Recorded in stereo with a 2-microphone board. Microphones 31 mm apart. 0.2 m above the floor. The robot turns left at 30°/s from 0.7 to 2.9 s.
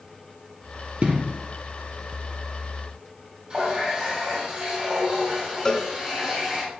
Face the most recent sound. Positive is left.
turn(degrees=15)  # may be behind; listen again after turning